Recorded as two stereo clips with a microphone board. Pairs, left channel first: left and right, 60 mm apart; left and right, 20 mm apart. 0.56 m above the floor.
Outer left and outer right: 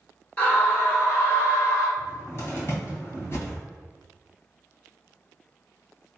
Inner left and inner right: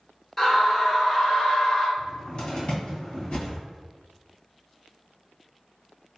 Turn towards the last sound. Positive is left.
turn(degrees=40)  # may be behind; listen again after turning